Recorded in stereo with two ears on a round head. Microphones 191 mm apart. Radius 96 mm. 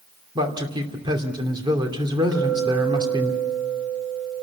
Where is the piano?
I don't hear a piano.